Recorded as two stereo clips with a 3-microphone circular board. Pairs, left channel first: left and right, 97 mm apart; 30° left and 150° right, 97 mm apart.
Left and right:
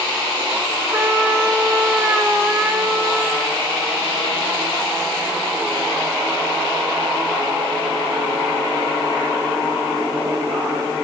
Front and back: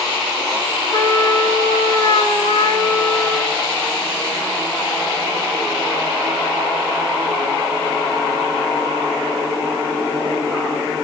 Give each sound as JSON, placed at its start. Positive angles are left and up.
{"t": 0.9, "sound": "a trumpet", "azimuth_deg": -10, "distance_m": 6.5}